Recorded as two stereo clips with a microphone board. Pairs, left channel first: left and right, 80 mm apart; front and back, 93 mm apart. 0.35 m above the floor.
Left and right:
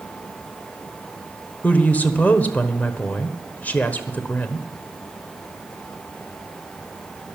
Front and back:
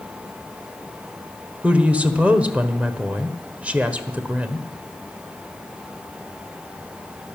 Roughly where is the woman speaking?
Behind left.